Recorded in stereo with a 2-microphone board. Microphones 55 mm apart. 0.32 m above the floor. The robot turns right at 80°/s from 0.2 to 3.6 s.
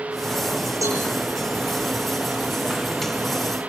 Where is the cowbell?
85° right, 5.5 m; by 1.0 s 70° right (ahead or behind), 5.5 m.